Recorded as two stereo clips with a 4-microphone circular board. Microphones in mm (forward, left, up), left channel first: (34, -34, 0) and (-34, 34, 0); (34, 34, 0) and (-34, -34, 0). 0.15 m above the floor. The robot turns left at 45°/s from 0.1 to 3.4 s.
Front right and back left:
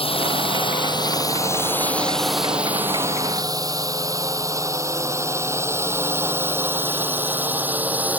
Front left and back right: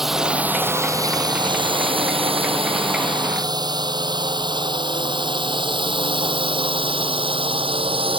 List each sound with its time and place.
0.0 s a drone: 50° right; by 8.2 s 150° right